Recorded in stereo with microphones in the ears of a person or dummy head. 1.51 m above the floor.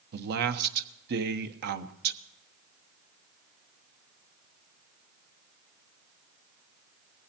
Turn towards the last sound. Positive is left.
turn(degrees=-55)  # may be behind; listen again after turning